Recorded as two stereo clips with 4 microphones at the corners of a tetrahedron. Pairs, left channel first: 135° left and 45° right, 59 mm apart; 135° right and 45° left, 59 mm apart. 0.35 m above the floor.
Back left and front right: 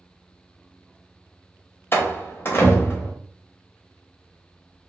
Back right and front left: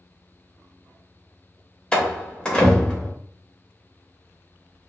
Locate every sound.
1.9 s a door slam: 155° left, 0.7 m